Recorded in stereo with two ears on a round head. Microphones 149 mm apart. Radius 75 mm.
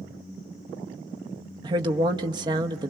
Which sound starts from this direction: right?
A woman speaking, at 1.6 s.